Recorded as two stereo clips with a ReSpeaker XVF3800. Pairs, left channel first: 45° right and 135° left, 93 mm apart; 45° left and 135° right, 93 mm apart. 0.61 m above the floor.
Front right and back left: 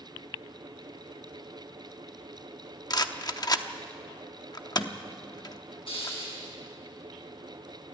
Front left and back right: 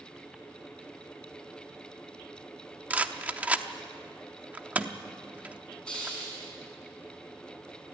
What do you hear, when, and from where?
2.9 s a rattle: 65° right, 0.8 m
5.9 s a hiss: 35° right, 7 m